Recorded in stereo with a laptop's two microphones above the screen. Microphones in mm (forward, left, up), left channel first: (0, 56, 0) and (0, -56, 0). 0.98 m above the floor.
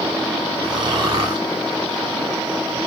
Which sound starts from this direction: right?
Snoring, at 0.6 s.